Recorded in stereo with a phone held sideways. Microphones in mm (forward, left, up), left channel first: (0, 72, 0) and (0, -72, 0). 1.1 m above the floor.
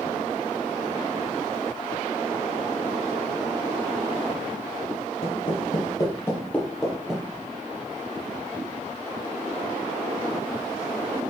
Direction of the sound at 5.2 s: 45° left (ahead or behind).